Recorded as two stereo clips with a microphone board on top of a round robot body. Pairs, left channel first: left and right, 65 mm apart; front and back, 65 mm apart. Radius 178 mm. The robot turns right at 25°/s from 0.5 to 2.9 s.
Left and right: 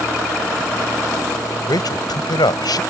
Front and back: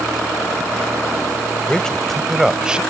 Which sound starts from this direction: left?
A man speaking, at 1.7 s.